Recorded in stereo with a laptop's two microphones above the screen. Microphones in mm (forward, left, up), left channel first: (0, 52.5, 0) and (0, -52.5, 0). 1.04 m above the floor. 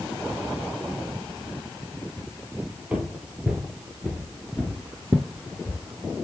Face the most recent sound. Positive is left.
turn(degrees=15)  # may be behind; listen again after turning